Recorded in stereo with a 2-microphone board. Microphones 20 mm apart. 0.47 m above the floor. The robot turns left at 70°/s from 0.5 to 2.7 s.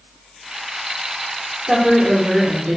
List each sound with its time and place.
1.7 s a woman speaking: 25° right, 1.0 m; by 2.8 s 95° right, 1.0 m